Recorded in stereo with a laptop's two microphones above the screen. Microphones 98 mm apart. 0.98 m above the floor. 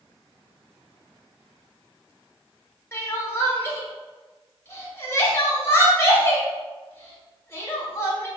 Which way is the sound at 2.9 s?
25° left (ahead or behind).